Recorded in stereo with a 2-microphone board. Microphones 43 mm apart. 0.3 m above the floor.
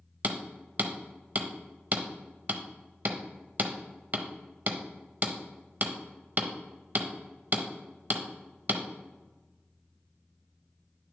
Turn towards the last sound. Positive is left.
turn(degrees=-40)  # may be behind; listen again after turning